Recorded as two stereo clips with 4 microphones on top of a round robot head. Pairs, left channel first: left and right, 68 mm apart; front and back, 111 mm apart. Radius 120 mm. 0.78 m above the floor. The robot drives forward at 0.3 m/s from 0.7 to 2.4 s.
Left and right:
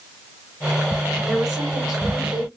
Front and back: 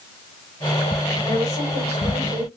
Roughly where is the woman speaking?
Behind.